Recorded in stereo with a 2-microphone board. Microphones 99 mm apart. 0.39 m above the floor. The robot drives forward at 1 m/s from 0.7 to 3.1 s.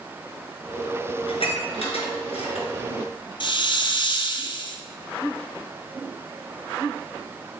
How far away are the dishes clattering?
About 4 m.